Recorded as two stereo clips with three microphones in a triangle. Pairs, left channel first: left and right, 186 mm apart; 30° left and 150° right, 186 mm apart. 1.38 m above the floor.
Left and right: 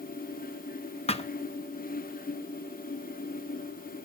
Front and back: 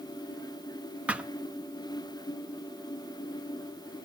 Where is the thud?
130° left, 0.8 m.